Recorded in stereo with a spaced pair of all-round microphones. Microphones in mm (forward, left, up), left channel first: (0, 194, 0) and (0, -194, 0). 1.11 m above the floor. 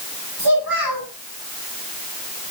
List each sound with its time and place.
0.4 s a child speaking: 70° right (ahead or behind), 8 m